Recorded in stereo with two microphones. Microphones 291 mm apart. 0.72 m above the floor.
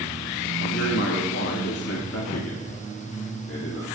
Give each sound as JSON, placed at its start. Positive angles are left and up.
{"t": 0.6, "sound": "a man speaking", "side_deg": 50, "distance_m": 1.5}